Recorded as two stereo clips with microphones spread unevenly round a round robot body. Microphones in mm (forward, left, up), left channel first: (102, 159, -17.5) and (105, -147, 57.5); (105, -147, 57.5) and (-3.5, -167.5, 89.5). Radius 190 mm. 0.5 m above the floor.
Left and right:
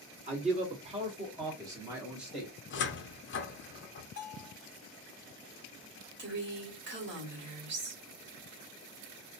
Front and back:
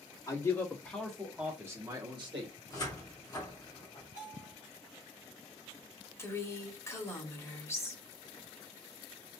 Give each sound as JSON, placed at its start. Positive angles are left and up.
{"t": 0.3, "sound": "a man speaking", "azimuth_deg": -15, "distance_m": 1.6}
{"t": 2.7, "sound": "a cupboard door", "azimuth_deg": 50, "distance_m": 0.7}
{"t": 4.2, "sound": "a bell", "azimuth_deg": 145, "distance_m": 0.8}
{"t": 6.2, "sound": "a woman speaking", "azimuth_deg": -30, "distance_m": 1.7}